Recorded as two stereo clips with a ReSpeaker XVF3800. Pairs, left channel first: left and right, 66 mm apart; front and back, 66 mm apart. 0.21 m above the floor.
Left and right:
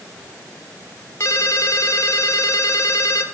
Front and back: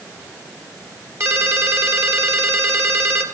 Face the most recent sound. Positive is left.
turn(degrees=135)